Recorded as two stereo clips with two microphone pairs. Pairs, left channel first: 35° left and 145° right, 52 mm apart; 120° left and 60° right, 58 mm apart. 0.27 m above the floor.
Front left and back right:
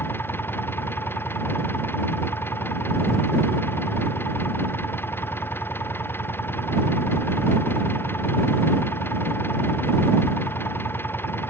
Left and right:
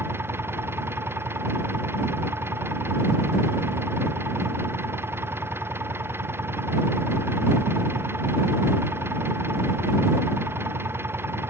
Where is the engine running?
10° right.